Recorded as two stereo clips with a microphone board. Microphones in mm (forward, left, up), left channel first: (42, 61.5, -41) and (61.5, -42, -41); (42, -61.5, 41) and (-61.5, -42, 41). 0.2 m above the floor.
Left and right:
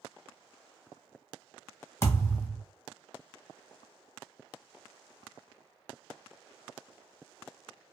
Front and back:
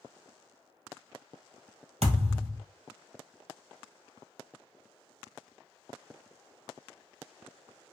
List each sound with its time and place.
2.0 s a thud: 165° left, 1.4 m